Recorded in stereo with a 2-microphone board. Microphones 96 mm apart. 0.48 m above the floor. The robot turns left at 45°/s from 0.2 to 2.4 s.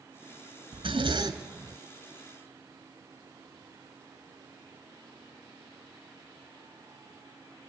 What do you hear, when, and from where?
0.7 s a zipper: 110° right, 1.9 m; by 1.8 s 155° right, 1.9 m